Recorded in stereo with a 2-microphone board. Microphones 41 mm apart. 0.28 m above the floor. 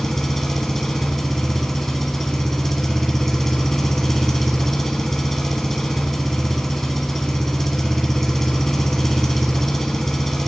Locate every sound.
0.0 s an engine running: 5° left (ahead or behind), 1.0 m